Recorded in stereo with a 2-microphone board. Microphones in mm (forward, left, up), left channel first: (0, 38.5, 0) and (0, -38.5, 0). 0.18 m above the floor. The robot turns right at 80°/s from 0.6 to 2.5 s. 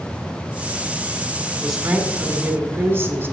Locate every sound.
1.6 s a woman speaking: 175° left, 1.2 m; by 3.3 s 110° right, 1.2 m